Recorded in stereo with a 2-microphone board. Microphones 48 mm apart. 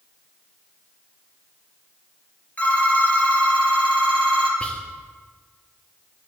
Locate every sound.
2.6 s a phone ringing: 30° left (ahead or behind), 2.5 m
4.6 s whispering: 25° left (ahead or behind), 1.5 m